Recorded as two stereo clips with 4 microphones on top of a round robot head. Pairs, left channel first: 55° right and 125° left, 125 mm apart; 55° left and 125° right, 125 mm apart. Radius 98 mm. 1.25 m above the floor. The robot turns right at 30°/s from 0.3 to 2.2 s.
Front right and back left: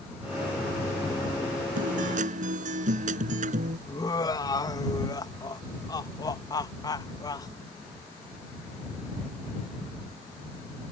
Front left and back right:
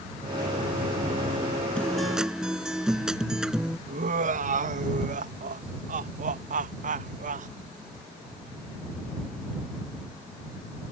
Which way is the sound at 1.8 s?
135° left.